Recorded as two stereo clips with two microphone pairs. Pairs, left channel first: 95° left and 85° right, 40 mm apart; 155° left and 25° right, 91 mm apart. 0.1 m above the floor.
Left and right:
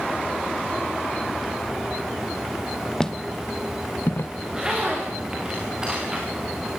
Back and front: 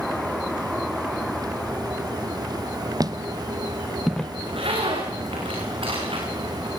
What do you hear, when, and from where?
3.0 s footsteps: 20° left, 0.9 m; by 4.3 s 75° left, 0.7 m
4.4 s a zipper: 10° right, 6.5 m